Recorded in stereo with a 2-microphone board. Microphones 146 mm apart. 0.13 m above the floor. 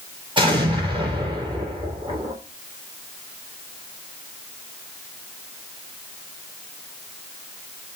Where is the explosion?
30° right (ahead or behind), 2.5 m.